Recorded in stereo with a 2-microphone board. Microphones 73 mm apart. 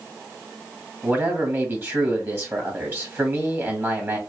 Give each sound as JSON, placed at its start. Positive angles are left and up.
{"t": 1.0, "sound": "a man speaking", "side_deg": -30, "distance_m": 2.0}